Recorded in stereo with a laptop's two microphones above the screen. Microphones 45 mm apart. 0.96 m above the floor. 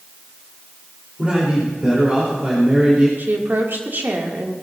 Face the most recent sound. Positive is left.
turn(degrees=-50)  # may be behind; listen again after turning